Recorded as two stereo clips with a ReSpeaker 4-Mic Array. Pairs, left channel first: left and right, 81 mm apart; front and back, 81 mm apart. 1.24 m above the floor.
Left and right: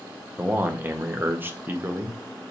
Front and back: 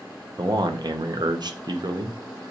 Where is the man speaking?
155° right, 0.7 m.